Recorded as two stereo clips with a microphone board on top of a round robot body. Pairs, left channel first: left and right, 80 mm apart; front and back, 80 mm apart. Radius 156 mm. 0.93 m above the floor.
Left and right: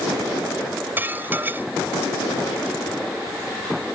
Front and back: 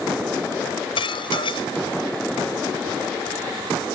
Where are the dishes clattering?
20° right.